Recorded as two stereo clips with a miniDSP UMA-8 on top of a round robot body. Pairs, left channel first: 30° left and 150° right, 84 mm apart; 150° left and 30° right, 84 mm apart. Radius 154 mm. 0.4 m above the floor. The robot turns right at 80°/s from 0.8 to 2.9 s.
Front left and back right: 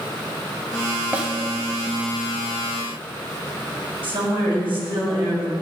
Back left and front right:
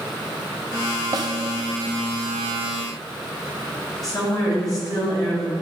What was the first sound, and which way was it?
A snare drum, 75° right.